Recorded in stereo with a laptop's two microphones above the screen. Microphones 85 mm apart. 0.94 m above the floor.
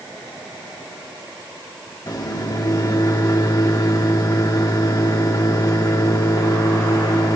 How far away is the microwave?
About 1.4 m.